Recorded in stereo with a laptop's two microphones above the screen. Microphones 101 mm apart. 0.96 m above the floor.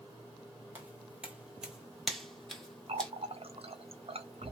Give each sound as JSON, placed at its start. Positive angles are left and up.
{"t": 0.8, "sound": "footsteps", "side_deg": -15, "distance_m": 1.0}
{"t": 2.9, "sound": "a running tap", "side_deg": -70, "distance_m": 0.5}